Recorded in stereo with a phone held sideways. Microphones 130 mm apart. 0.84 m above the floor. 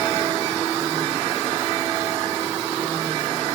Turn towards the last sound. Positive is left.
No sound to turn to.